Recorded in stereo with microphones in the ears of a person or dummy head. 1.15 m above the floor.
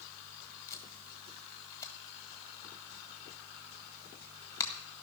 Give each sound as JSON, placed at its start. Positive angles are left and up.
{"t": 0.7, "sound": "tape being pulled", "side_deg": 15, "distance_m": 1.8}